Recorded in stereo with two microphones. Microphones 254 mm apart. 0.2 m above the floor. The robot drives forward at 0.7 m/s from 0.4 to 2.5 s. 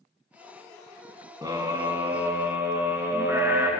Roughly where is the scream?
Centre.